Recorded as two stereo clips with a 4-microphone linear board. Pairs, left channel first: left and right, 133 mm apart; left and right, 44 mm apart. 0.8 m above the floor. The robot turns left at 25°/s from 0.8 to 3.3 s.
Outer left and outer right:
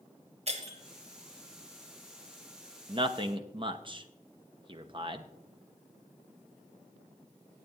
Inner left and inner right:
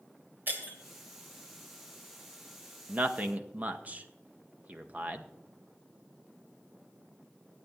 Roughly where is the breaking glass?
Right.